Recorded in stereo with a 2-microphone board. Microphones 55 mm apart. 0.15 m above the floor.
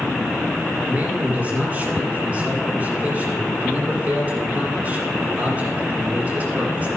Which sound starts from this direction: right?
A man speaking, at 0.9 s.